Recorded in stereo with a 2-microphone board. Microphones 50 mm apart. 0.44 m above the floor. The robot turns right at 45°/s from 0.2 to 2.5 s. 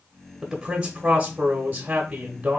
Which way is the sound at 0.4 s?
5° right (ahead or behind).